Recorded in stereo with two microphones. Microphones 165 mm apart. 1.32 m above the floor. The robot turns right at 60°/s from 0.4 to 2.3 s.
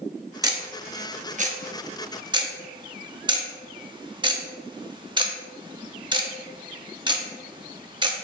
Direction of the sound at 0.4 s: 20° right (ahead or behind).